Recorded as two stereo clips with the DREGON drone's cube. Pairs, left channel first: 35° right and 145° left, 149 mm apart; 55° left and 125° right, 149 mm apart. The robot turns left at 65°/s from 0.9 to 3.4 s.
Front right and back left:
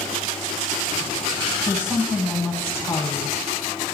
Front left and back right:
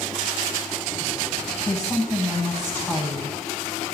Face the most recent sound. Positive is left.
turn(degrees=-30)